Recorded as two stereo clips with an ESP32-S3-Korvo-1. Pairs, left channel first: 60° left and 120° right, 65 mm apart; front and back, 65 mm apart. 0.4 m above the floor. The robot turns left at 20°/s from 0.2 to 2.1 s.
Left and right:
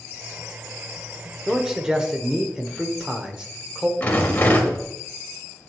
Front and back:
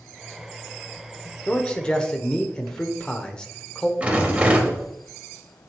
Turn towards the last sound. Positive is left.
turn(degrees=115)